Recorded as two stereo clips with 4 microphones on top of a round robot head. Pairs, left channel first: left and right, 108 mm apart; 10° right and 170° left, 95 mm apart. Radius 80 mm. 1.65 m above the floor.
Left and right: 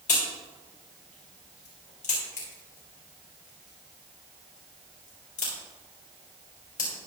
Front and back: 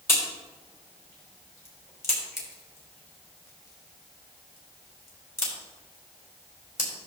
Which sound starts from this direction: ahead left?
A crack, at 0.1 s.